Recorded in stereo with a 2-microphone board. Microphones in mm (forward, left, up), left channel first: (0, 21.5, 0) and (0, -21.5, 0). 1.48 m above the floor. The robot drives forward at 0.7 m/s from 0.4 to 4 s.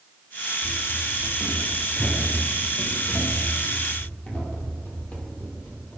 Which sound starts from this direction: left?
Running footsteps, at 0.6 s.